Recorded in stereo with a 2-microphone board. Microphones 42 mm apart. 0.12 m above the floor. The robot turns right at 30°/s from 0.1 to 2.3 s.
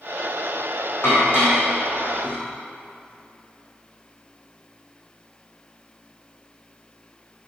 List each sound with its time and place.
1.0 s dishes clattering: 70° left (ahead or behind), 4 m; by 2.4 s 35° left (ahead or behind), 4 m